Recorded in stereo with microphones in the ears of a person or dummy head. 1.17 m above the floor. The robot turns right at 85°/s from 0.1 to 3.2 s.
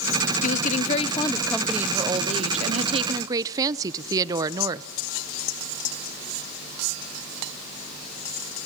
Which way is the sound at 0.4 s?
80° left.